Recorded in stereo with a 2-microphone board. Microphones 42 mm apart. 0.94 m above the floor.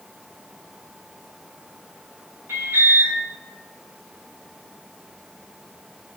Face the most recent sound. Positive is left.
turn(degrees=-65)  # may be behind; listen again after turning